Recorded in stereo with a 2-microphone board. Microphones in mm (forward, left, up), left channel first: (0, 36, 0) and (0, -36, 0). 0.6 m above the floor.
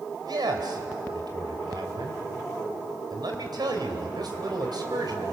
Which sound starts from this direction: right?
A man speaking, at 0.2 s.